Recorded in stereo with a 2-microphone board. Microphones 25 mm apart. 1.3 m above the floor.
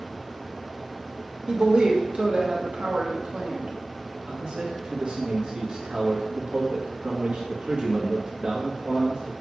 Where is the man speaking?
40° right (ahead or behind), 1.6 m.